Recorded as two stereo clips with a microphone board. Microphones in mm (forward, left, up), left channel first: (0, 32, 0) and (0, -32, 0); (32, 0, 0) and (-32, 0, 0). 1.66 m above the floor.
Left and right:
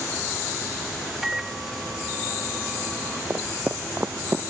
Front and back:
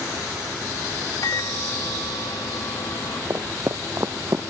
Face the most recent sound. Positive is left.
turn(degrees=-145)